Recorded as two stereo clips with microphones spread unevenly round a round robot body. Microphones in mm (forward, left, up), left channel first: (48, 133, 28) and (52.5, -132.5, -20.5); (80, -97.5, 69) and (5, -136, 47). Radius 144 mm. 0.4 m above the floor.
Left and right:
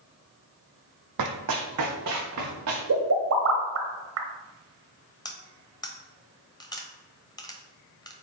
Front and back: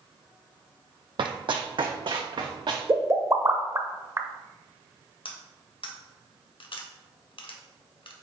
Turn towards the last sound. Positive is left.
turn(degrees=10)